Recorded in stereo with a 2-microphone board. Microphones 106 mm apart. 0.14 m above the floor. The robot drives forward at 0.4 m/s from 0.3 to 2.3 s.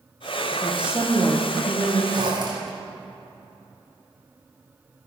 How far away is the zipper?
About 3 m.